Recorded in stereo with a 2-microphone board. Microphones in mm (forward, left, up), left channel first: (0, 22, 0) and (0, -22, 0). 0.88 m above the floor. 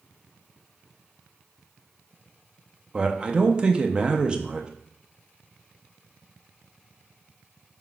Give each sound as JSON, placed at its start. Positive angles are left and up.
{"t": 2.9, "sound": "a man speaking", "side_deg": -20, "distance_m": 0.5}